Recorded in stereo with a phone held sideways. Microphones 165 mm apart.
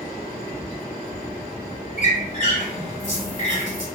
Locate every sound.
2.0 s a squeak: 50° left (ahead or behind), 1.6 m